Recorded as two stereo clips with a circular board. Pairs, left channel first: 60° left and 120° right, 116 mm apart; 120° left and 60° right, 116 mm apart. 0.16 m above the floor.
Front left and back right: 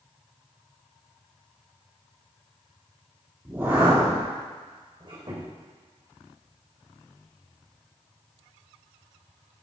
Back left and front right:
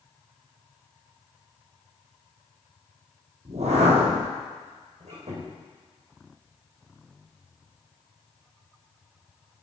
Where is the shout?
No shout in this recording.